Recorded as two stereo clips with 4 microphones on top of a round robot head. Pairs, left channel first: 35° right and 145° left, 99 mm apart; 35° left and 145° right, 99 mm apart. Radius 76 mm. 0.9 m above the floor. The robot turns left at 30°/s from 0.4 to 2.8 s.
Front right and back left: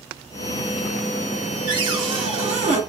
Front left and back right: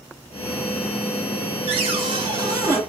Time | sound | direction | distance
1.7 | a cupboard door | 170° right | 1.1 m